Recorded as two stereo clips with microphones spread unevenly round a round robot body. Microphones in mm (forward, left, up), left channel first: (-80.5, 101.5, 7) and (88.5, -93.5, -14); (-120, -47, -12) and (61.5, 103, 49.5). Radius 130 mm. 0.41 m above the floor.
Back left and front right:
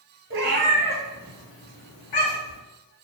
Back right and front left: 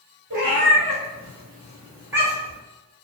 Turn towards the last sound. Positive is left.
turn(degrees=120)